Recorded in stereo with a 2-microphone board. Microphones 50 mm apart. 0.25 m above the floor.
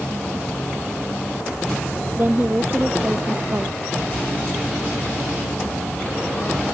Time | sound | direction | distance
2.2 | a woman speaking | 40° right (ahead or behind) | ?